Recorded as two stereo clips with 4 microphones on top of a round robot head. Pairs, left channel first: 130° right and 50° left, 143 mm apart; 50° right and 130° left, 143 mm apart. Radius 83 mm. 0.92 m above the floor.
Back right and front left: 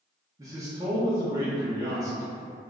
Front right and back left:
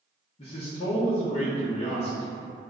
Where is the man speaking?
10° right, 0.7 m.